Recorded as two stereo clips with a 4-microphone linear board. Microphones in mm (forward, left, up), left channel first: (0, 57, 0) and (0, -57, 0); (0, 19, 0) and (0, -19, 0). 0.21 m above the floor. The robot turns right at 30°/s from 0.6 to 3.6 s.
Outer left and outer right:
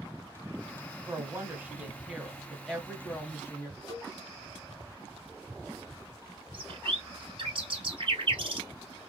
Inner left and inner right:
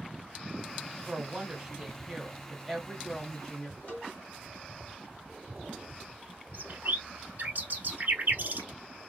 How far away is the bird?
About 0.8 m.